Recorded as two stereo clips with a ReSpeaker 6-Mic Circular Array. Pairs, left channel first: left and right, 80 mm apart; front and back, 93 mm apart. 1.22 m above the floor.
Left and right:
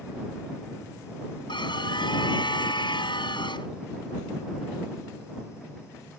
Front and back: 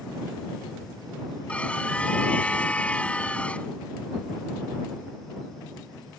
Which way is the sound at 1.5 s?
75° left.